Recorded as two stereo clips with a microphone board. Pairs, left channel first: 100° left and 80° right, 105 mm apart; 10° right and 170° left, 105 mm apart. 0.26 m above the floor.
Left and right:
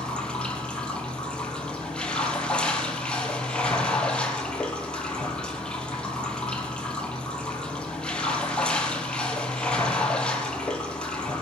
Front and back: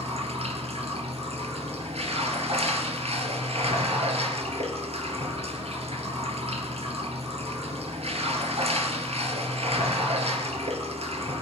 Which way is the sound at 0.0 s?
Straight behind.